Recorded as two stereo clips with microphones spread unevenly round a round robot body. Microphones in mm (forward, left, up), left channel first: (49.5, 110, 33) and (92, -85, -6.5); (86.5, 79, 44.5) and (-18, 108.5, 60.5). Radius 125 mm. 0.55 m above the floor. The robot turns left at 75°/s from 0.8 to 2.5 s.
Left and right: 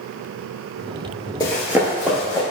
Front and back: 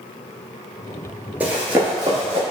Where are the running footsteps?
125° left, 0.5 m; by 2.4 s 170° left, 0.9 m.